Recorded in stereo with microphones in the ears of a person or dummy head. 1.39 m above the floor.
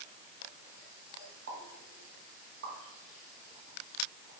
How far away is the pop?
About 1.9 m.